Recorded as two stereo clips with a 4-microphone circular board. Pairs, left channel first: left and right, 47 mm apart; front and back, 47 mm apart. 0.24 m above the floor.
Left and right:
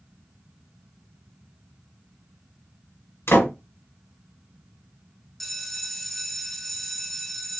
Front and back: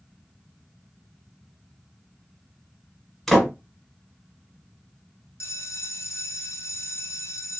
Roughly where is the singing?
I don't hear singing.